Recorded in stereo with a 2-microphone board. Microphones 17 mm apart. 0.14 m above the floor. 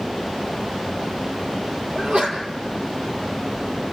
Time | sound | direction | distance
1.9 | a sneeze | 65° right (ahead or behind) | 4 m